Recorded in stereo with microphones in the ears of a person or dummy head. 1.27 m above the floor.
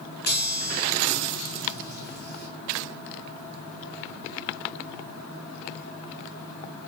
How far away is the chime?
About 5 m.